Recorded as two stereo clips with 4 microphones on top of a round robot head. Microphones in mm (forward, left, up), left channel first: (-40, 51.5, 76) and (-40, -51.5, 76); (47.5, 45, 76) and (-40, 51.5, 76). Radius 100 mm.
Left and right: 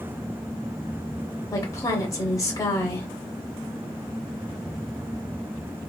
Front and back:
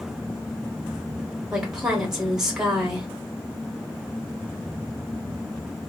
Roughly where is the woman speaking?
Left.